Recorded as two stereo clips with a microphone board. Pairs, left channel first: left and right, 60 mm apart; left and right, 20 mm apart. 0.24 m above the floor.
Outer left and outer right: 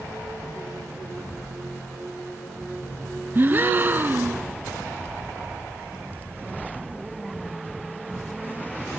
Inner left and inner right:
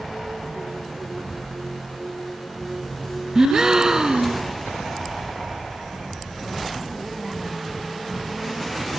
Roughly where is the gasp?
Right.